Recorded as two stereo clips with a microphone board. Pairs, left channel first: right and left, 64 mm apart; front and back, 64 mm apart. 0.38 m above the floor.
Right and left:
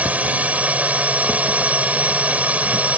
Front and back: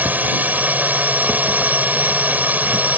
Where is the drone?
140° left.